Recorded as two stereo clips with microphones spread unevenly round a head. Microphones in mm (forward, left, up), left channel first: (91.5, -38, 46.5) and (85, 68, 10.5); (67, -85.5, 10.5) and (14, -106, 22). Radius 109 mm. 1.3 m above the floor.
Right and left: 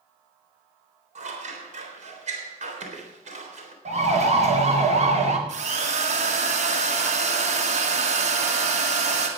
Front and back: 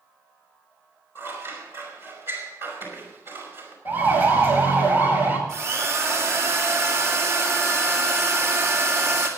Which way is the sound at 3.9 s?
80° left.